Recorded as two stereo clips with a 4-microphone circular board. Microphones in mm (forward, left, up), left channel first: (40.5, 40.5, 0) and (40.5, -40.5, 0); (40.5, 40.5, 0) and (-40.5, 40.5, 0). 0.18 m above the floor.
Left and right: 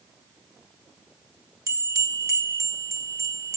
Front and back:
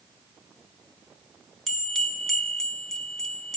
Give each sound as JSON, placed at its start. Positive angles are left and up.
{"t": 1.7, "sound": "a bell", "azimuth_deg": -85, "distance_m": 0.8}